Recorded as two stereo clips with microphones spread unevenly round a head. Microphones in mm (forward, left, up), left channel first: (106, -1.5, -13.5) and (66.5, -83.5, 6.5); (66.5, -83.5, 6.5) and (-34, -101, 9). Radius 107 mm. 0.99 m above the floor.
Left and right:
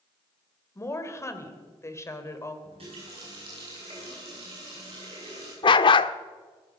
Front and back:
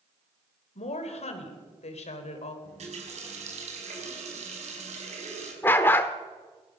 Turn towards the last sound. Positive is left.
turn(degrees=80)